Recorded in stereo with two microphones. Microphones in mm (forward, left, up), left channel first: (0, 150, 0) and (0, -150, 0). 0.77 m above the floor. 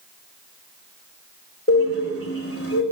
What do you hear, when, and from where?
1.7 s a bird: 45° left (ahead or behind), 3 m